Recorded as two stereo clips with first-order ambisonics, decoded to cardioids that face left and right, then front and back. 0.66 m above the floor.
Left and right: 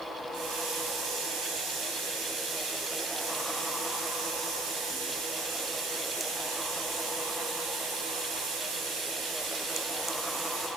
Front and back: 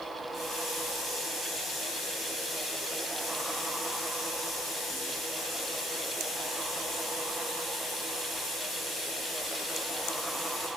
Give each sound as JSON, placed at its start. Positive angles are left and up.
{"t": 0.3, "sound": "a running tap", "azimuth_deg": -100, "distance_m": 3.5}